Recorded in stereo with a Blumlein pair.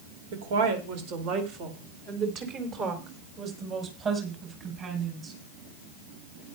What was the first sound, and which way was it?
A woman speaking, 55° right.